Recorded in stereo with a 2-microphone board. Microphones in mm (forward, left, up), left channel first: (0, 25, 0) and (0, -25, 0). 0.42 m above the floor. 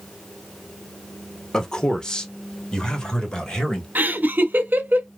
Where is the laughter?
40° right (ahead or behind), 0.9 m.